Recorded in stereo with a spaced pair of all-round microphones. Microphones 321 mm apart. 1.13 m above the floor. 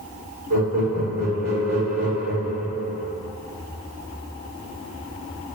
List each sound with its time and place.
0.5 s laughter: 50° right (ahead or behind), 1.6 m